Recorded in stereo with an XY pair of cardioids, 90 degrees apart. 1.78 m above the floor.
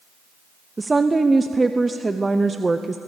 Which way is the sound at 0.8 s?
20° right.